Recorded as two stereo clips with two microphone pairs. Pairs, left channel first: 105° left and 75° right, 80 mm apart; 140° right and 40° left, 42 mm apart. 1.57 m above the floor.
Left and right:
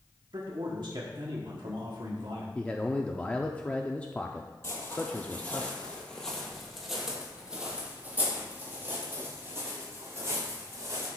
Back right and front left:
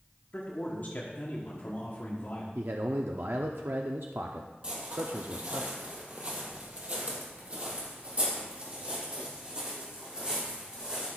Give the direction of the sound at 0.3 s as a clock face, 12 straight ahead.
3 o'clock.